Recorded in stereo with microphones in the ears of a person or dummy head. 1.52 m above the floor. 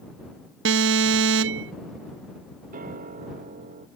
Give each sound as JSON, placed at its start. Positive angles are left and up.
{"t": 0.7, "sound": "an alarm", "side_deg": -65}
{"t": 2.7, "sound": "a piano", "side_deg": -45}